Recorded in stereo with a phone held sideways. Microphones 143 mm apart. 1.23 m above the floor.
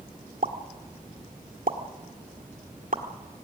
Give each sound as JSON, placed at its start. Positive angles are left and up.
{"t": 0.4, "sound": "a pop", "side_deg": -70, "distance_m": 1.7}